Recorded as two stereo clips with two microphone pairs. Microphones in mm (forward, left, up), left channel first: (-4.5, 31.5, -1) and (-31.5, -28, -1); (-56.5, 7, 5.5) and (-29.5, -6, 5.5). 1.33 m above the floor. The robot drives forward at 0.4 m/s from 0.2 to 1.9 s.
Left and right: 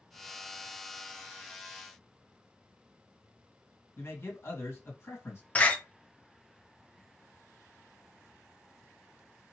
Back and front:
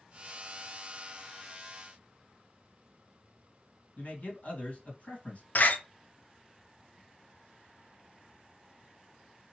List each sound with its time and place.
4.0 s a man speaking: 115° left, 2 m
5.5 s a door slam: 135° left, 0.5 m